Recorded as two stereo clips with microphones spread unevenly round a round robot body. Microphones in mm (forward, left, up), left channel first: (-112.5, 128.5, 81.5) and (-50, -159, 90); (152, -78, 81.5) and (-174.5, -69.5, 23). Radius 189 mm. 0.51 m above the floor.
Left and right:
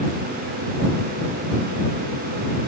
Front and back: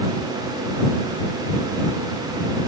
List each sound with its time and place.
Only background noise.